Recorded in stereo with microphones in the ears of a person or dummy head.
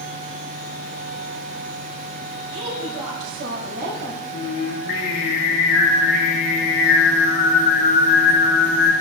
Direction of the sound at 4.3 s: 65° left (ahead or behind).